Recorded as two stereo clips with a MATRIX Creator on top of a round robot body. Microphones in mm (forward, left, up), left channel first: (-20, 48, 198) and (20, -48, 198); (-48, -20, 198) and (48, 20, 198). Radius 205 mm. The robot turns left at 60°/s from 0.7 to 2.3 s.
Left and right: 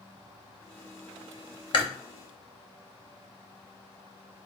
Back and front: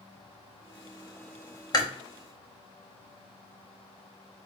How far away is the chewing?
About 0.9 m.